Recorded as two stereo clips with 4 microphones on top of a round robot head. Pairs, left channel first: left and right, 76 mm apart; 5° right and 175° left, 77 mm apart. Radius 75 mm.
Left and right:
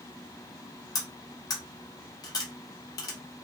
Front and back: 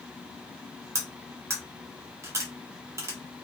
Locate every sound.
0.9 s cutlery clinking: 125° left, 1.0 m